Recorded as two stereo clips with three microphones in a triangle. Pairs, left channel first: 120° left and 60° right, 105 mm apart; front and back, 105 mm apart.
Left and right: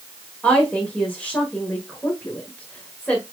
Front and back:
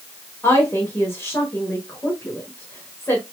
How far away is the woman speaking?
About 1.3 m.